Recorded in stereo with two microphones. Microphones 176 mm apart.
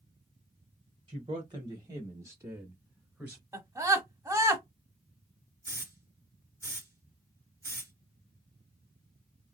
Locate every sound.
1.1 s a man speaking: 25° right (ahead or behind), 1.0 m; by 3.4 s 5° right (ahead or behind), 1.6 m
3.5 s a scream: 15° right (ahead or behind), 1.5 m
5.6 s a hiss: 15° right (ahead or behind), 1.4 m